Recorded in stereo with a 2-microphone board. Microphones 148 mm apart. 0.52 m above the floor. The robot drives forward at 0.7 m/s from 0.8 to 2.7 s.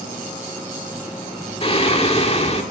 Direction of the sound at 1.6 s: 40° left (ahead or behind).